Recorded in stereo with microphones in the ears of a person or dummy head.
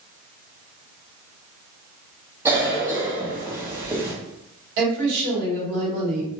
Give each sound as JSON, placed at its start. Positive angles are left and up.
{"t": 2.5, "sound": "a cough", "side_deg": -15, "distance_m": 1.0}
{"t": 4.8, "sound": "a woman speaking", "side_deg": -60, "distance_m": 1.8}